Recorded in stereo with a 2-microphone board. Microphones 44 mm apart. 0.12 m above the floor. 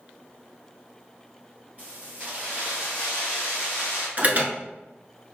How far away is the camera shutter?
I don't hear a camera shutter.